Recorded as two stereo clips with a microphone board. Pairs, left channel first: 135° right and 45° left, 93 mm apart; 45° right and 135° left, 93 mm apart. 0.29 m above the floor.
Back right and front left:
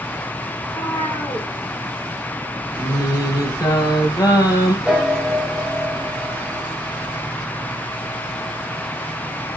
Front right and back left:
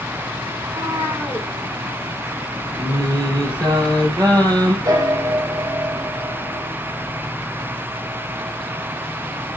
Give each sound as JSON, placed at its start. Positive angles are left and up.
{"t": 0.6, "sound": "a cat meowing", "azimuth_deg": -170, "distance_m": 7.0}
{"t": 2.8, "sound": "singing", "azimuth_deg": 180, "distance_m": 4.0}
{"t": 4.8, "sound": "a piano", "azimuth_deg": 125, "distance_m": 2.0}